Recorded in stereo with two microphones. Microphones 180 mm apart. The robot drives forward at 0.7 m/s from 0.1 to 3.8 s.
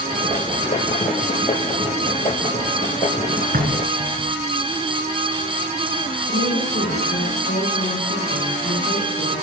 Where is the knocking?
50° right (ahead or behind), 1.8 m; by 4.4 s 55° right (ahead or behind), 1.8 m.